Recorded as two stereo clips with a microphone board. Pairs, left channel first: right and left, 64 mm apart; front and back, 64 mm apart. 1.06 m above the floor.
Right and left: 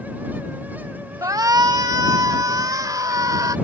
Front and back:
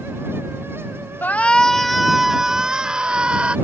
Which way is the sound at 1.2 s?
60° left.